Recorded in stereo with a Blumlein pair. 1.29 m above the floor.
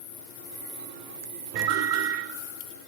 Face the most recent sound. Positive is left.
turn(degrees=-45)